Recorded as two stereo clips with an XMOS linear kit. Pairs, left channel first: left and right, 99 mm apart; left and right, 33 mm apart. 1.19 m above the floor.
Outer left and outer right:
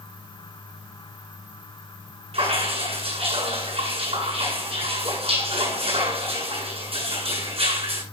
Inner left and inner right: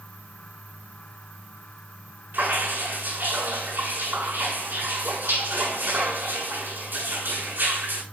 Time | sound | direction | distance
2.3 | dripping | 80° right | 8.5 m